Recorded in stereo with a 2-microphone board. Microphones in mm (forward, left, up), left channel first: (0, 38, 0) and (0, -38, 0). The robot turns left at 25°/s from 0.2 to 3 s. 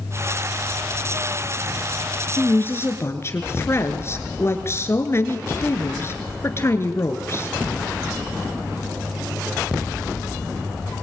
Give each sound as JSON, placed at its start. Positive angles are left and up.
{"t": 2.4, "sound": "a woman speaking", "side_deg": 20, "distance_m": 2.5}